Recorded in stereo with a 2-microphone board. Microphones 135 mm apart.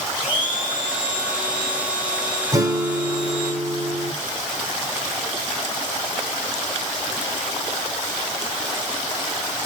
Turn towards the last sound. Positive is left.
turn(degrees=-25)  # may be behind; listen again after turning